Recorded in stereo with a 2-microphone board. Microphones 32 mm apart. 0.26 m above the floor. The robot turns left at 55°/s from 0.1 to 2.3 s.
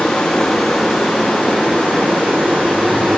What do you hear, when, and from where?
0.0 s running water: 30° left, 4.5 m; by 3.2 s 90° right, 4.5 m